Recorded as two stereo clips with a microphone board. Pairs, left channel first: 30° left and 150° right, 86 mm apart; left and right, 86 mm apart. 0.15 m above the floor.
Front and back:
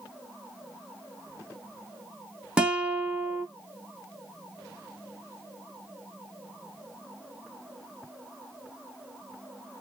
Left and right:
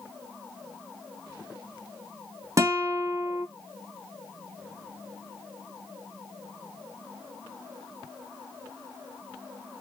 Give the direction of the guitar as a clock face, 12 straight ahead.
3 o'clock.